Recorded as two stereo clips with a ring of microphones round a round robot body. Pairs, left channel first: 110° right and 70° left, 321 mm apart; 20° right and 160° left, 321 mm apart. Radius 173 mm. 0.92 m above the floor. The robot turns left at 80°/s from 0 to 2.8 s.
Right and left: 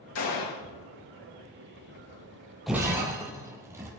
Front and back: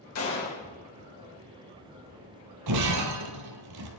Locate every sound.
0.1 s a gunshot: 60° right, 3 m; by 0.6 s 100° right, 3 m
2.7 s breaking glass: 160° left, 1.2 m; by 4.0 s 145° left, 1.2 m